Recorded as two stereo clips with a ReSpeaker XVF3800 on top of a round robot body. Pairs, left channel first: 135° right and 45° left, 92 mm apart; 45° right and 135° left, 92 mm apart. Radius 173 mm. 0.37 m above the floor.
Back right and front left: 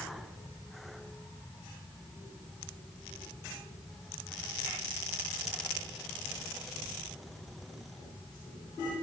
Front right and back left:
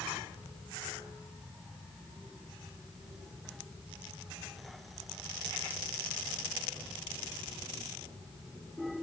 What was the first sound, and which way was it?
Only background noise.